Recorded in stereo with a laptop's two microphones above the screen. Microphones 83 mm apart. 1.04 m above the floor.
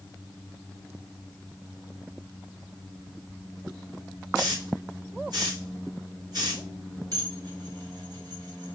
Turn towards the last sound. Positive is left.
turn(degrees=-55)  # may be behind; listen again after turning